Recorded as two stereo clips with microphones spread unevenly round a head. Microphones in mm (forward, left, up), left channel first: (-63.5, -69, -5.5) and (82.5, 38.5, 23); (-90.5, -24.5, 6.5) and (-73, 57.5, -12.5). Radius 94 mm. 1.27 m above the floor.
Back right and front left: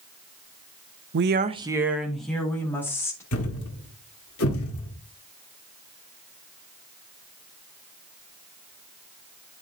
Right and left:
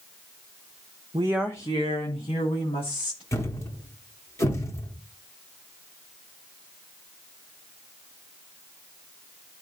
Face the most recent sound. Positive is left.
turn(degrees=-145)